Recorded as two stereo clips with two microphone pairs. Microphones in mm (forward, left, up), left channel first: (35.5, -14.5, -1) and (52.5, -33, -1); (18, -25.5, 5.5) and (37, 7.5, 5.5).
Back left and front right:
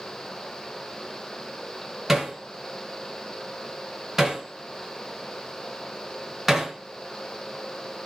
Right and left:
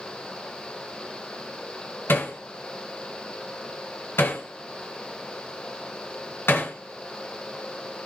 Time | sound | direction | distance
2.1 | hammering | 120° right | 3 m